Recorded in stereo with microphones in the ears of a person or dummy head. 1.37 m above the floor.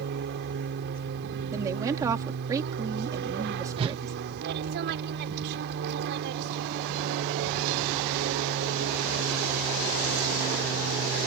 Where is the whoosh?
30° right (ahead or behind).